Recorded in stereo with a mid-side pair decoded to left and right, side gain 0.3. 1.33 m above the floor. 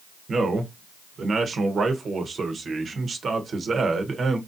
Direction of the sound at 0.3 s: 60° right.